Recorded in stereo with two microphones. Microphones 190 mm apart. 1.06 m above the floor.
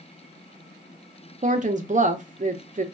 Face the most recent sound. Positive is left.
turn(degrees=-40)  # may be behind; listen again after turning